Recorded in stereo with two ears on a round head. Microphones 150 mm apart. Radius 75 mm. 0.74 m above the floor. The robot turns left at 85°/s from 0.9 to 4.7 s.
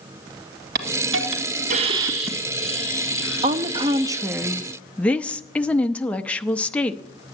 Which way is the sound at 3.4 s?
85° right.